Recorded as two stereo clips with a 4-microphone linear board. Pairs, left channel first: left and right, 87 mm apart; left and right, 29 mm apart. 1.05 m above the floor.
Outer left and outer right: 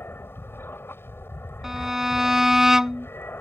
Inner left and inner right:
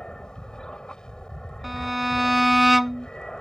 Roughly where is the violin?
Centre.